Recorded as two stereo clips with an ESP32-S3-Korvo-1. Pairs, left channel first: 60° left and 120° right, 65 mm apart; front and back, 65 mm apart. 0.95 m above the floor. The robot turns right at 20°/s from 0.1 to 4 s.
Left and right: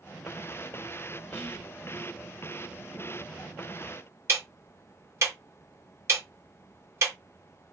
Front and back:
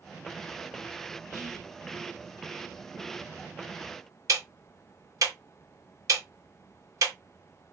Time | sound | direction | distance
1.3 | whispering | 140° left | 1.4 m
4.3 | ticking | 160° right | 1.3 m